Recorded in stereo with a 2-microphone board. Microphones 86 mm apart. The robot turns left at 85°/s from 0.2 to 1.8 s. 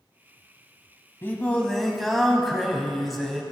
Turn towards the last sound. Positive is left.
turn(degrees=0)